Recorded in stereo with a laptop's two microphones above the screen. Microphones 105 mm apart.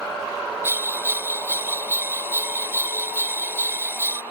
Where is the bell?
20° right (ahead or behind), 0.9 m.